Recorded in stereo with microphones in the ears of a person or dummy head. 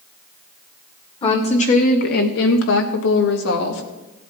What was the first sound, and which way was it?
A woman speaking, 35° left (ahead or behind).